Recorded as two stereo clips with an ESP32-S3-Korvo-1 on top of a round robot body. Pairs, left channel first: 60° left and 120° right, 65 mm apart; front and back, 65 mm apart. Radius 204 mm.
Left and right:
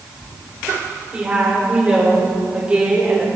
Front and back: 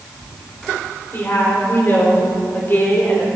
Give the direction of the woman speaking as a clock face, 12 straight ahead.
2 o'clock.